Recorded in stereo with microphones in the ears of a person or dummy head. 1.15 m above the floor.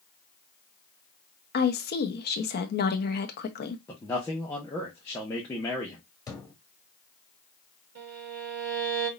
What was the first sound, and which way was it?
A woman speaking, 55° left (ahead or behind).